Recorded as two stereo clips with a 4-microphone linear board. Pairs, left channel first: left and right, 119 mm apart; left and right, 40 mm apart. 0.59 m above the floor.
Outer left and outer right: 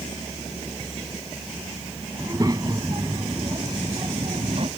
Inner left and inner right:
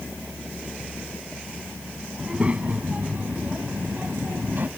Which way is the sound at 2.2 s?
30° right (ahead or behind).